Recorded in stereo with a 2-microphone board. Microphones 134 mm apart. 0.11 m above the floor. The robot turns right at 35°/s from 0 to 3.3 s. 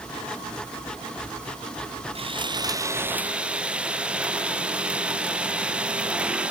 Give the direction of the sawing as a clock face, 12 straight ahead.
2 o'clock.